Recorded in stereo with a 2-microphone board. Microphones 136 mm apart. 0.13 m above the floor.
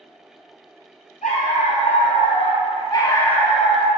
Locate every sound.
1.2 s a dog barking: 65° left (ahead or behind), 1.2 m; by 3.9 s 5° right (ahead or behind), 0.8 m